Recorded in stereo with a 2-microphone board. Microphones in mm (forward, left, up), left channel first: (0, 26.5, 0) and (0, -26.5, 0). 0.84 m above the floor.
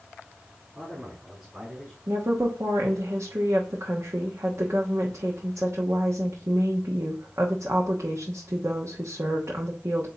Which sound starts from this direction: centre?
A man speaking, at 0.8 s.